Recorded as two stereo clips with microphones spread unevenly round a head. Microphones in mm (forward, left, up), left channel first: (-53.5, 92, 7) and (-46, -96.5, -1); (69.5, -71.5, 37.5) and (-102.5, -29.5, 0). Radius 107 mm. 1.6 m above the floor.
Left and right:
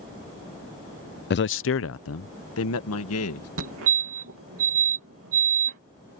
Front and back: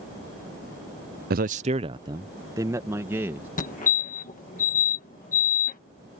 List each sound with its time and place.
1.3 s a man speaking: 130° left; by 3.5 s 85° left
3.6 s a fire alarm: 60° right